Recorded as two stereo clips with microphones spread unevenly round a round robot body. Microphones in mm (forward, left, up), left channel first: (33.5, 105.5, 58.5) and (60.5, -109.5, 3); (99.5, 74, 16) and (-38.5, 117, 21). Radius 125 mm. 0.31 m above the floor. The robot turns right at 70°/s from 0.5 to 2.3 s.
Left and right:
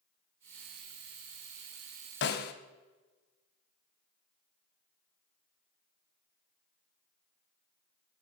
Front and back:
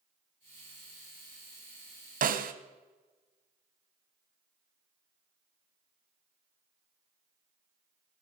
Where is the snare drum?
145° left, 1.2 m; by 2.5 s 150° left, 1.2 m.